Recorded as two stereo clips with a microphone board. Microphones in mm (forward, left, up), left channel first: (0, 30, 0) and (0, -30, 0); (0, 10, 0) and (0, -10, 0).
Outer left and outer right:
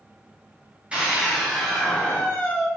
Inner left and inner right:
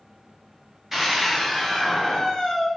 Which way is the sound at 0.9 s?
20° right (ahead or behind).